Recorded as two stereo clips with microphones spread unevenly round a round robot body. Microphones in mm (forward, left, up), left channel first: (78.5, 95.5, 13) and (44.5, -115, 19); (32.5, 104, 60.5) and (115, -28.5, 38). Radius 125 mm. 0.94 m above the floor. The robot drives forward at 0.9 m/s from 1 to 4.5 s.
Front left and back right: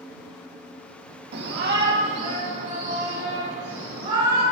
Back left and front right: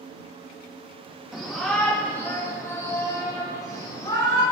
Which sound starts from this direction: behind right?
A shout, at 1.3 s.